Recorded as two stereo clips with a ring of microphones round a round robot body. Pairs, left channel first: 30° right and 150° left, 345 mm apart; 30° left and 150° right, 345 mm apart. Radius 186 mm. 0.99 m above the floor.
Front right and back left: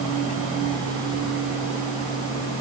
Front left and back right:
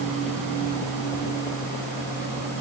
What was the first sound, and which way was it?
Only background noise.